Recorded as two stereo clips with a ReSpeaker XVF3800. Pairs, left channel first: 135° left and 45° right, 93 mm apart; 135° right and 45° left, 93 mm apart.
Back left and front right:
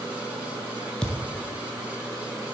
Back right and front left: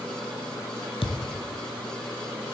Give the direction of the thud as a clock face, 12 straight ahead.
5 o'clock.